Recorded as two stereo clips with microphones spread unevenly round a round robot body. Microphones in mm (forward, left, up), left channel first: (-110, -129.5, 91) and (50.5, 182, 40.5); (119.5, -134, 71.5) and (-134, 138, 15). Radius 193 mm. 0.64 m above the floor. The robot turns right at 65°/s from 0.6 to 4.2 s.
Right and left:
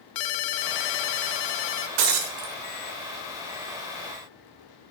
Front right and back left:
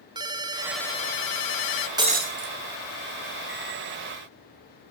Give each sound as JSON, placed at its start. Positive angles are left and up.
{"t": 0.1, "sound": "a ringtone", "azimuth_deg": -145, "distance_m": 0.8}
{"t": 2.0, "sound": "breaking glass", "azimuth_deg": 55, "distance_m": 1.6}